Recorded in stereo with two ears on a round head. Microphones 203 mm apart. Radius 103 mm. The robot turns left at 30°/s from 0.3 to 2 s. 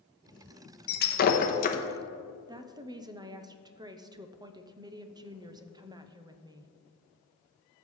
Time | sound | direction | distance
0.9 | breaking glass | 45° left (ahead or behind) | 0.8 m
2.5 | a woman speaking | 20° right (ahead or behind) | 0.6 m